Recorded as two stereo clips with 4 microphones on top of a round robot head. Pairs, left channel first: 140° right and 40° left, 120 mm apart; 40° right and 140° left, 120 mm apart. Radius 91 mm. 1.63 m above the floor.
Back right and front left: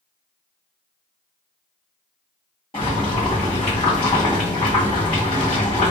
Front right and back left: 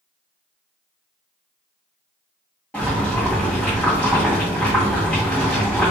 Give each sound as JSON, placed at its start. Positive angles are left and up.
{"t": 2.7, "sound": "boiling", "azimuth_deg": -115, "distance_m": 0.9}